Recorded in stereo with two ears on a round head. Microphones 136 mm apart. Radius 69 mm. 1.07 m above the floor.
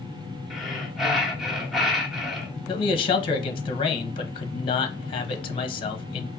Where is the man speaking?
35° left (ahead or behind), 0.8 m.